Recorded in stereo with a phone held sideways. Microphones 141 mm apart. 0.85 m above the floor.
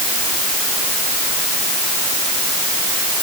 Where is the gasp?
I don't hear a gasp.